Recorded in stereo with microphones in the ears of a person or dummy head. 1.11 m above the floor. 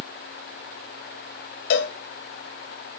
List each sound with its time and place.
1.7 s a cowbell: 50° left (ahead or behind), 1.3 m